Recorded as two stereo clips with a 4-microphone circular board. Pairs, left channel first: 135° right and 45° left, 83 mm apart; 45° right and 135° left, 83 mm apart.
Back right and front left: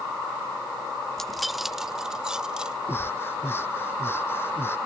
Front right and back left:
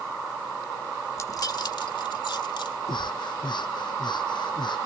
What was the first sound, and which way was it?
Keys jangling, 55° right.